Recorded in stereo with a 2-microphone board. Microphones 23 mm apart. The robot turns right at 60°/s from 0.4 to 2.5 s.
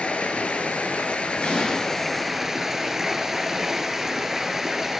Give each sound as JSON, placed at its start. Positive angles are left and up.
{"t": 0.0, "sound": "running water", "azimuth_deg": 70, "distance_m": 0.8}
{"t": 1.4, "sound": "an explosion", "side_deg": 65, "distance_m": 2.5}